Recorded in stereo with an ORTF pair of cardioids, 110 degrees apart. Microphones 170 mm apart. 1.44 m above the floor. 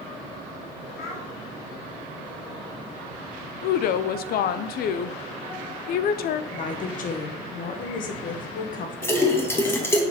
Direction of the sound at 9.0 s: 15° left.